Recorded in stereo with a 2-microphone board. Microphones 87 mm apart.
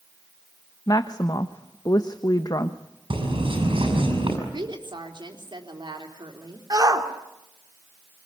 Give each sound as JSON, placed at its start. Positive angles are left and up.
{"t": 0.9, "sound": "a woman speaking", "side_deg": 50, "distance_m": 1.0}
{"t": 3.1, "sound": "a bird", "side_deg": -80, "distance_m": 7.0}
{"t": 4.5, "sound": "a woman speaking", "side_deg": -65, "distance_m": 4.0}
{"t": 6.7, "sound": "a shout", "side_deg": -45, "distance_m": 2.5}